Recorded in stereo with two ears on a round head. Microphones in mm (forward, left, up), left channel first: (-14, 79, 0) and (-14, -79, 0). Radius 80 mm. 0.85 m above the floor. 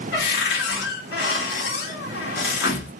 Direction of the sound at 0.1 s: 65° left (ahead or behind).